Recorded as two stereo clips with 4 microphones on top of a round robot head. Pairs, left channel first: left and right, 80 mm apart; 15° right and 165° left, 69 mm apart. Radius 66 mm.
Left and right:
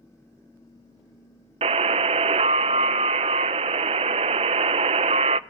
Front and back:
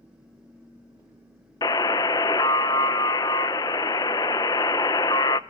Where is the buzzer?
65° right, 0.5 m.